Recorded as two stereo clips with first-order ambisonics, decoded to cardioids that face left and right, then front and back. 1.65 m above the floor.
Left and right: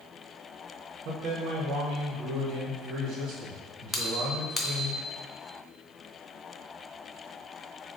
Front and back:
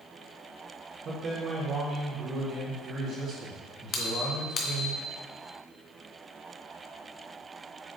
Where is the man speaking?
125° right, 1.3 m.